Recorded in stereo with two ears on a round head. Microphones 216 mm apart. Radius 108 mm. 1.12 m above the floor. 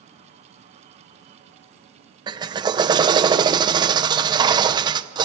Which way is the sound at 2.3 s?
20° right (ahead or behind).